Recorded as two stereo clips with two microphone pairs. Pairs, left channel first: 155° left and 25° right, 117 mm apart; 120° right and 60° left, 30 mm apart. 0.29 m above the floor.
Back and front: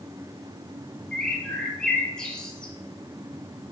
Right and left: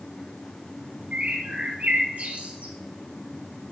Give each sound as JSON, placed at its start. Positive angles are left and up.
{"t": 1.1, "sound": "a bird", "azimuth_deg": 70, "distance_m": 1.2}